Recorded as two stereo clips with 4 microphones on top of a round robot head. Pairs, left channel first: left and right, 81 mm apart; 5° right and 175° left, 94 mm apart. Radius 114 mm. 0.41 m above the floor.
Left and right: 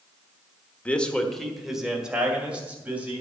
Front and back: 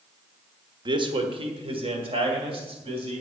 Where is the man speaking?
160° left, 1.5 m; by 3.2 s 160° right, 3.5 m.